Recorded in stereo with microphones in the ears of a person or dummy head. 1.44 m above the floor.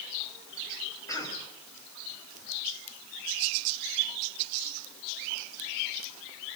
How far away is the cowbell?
I don't hear a cowbell.